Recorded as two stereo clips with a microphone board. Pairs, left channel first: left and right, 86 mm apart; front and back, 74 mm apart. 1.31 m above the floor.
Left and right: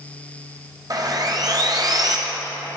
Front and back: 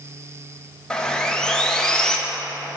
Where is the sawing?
75° right, 0.7 m.